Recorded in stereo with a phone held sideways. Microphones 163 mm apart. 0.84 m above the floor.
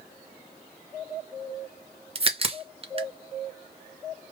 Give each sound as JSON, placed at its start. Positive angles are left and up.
{"t": 2.1, "sound": "a crack", "side_deg": -35, "distance_m": 0.6}